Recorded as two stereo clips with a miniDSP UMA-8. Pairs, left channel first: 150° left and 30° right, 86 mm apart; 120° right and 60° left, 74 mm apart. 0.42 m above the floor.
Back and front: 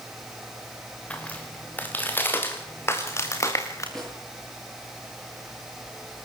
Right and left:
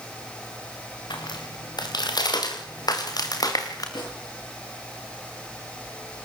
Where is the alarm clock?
No alarm clock in this recording.